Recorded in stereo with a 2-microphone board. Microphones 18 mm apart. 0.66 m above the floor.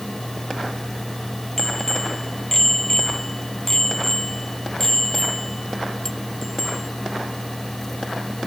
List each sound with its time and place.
1.6 s a bicycle bell: 30° left (ahead or behind); by 6.9 s 20° left (ahead or behind)